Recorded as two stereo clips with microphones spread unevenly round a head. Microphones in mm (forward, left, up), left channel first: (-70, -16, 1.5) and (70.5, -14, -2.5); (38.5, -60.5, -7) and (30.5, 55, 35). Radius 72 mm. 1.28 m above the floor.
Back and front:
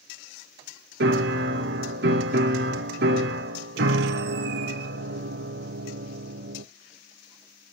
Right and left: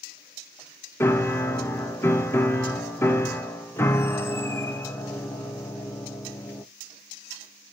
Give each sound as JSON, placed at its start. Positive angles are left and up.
{"t": 1.0, "sound": "a piano", "azimuth_deg": -5, "distance_m": 0.8}